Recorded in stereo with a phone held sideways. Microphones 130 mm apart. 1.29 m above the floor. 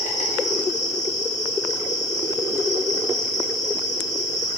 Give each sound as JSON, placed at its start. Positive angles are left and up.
{"t": 0.0, "sound": "an insect", "side_deg": 65, "distance_m": 1.8}